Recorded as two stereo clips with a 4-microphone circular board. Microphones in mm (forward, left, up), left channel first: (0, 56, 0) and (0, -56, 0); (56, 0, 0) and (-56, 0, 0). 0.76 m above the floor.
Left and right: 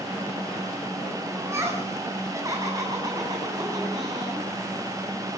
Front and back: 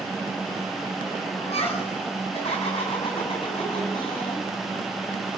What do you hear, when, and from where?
1.4 s laughter: 25° right, 8 m; by 4.5 s 40° right, 7.5 m